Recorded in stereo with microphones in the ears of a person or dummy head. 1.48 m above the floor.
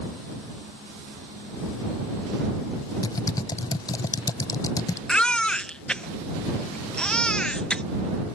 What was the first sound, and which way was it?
Typing on a keyboard, 25° left (ahead or behind).